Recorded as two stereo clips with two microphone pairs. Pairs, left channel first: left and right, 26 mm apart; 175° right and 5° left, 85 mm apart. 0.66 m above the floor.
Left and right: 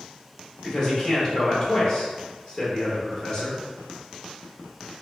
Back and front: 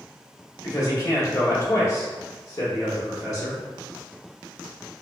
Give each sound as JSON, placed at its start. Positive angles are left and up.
{"t": 0.6, "sound": "a man speaking", "azimuth_deg": 140, "distance_m": 1.3}